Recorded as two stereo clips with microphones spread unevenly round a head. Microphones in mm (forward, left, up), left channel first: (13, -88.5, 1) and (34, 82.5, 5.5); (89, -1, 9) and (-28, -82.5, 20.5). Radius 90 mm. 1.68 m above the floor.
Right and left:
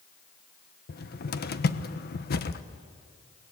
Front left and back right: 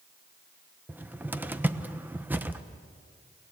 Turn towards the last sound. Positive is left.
turn(degrees=-70)